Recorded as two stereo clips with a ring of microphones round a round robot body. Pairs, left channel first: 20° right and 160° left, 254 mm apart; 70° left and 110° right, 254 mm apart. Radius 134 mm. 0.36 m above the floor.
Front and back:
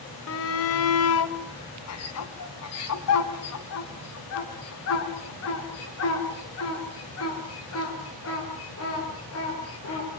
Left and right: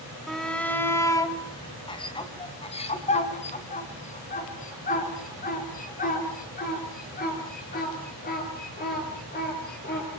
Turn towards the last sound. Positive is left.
turn(degrees=15)